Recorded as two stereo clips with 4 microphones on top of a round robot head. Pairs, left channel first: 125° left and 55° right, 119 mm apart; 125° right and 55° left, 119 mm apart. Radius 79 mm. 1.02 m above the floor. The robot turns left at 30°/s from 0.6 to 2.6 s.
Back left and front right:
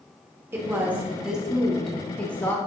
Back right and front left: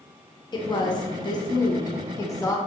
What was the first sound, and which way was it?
A woman speaking, 115° right.